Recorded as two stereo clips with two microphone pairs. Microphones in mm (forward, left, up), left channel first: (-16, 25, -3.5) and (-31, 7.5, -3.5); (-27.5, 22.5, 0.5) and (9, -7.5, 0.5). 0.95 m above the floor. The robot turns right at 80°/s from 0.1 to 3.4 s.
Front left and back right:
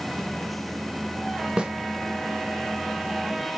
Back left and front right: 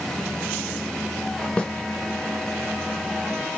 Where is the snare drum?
165° right, 0.5 m; by 1.7 s 150° right, 0.5 m.